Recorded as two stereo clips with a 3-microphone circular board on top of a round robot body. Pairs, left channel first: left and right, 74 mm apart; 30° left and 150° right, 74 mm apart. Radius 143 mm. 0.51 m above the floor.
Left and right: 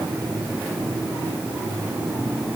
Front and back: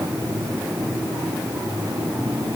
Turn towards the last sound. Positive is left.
No sound to turn to.